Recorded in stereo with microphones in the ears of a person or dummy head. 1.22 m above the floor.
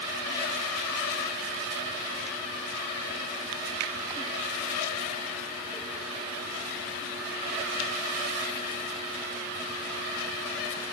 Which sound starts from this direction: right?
A finger snap, at 3.8 s.